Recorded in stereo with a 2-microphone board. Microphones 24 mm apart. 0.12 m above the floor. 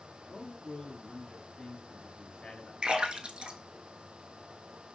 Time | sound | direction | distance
0.2 | a man speaking | 35° left (ahead or behind) | 1.4 m
2.8 | a splash | 45° right (ahead or behind) | 0.8 m